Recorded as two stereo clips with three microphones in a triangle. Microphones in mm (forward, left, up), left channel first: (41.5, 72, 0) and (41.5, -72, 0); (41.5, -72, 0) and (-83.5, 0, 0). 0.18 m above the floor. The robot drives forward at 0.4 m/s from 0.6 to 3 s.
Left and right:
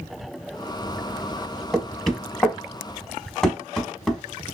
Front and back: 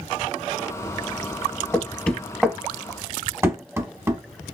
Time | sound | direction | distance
1.7 | knocking | 10° left | 0.8 m